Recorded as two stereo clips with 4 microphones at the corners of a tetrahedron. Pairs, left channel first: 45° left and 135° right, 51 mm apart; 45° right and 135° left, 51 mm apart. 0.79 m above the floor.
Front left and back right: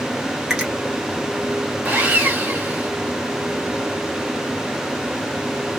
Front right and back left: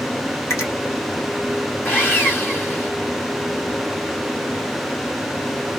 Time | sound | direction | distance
0.5 | a finger snap | 55° right | 1.1 m
1.9 | sawing | 80° right | 1.6 m